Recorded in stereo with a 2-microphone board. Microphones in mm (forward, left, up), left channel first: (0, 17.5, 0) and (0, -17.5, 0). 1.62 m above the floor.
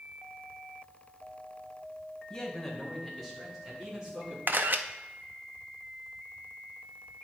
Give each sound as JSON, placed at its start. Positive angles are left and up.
{"t": 2.3, "sound": "a man speaking", "side_deg": 15, "distance_m": 1.9}
{"t": 4.5, "sound": "a camera shutter", "side_deg": -60, "distance_m": 0.5}